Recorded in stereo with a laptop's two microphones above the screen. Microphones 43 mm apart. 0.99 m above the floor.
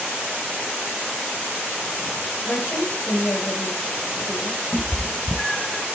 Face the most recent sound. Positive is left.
turn(degrees=5)  # may be behind; listen again after turning